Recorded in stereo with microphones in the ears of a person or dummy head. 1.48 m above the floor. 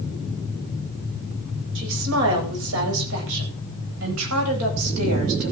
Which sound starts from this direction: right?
A woman speaking, at 1.8 s.